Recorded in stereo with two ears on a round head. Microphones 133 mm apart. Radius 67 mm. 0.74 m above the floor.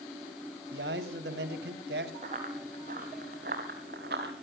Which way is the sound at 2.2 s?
50° right (ahead or behind).